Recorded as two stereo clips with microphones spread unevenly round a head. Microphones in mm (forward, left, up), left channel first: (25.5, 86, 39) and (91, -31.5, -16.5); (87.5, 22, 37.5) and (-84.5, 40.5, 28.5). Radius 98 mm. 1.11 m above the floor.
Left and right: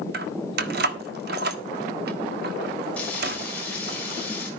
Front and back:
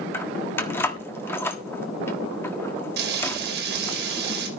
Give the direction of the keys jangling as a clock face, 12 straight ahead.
3 o'clock.